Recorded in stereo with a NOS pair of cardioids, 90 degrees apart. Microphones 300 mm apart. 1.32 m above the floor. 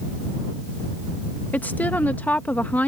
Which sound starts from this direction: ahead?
A woman speaking, at 1.5 s.